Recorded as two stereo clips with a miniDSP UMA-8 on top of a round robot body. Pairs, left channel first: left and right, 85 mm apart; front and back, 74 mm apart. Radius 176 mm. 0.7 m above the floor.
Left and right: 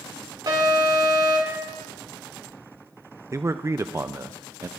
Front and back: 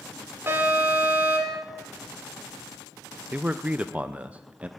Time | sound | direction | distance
0.5 | an alarm | 125° right | 3 m
3.3 | a man speaking | 120° right | 0.5 m